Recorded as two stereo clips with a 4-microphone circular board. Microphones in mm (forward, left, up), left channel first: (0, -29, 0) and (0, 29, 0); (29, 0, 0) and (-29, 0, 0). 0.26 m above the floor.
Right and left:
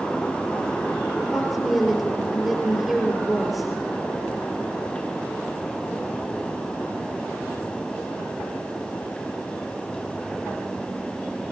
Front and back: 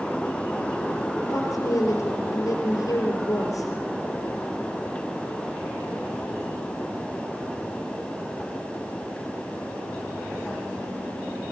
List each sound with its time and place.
1.3 s a woman speaking: 5° left, 4.5 m